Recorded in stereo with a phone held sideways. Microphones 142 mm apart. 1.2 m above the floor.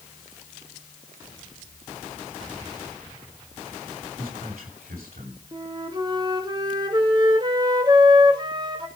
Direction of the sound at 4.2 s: 80° right.